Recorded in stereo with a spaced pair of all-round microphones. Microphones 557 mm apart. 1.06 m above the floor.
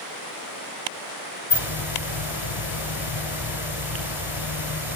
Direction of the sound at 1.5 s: 50° left (ahead or behind).